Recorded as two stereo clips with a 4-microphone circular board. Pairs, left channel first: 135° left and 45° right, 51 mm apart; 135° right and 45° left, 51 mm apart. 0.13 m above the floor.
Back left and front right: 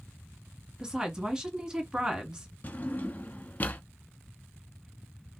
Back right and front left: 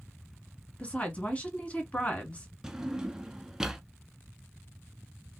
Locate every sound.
0.8 s a woman speaking: 105° right, 1.3 m
2.6 s a drawer: 120° left, 0.6 m